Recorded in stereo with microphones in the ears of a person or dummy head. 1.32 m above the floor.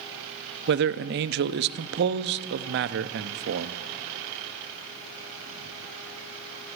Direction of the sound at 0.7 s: 50° right (ahead or behind).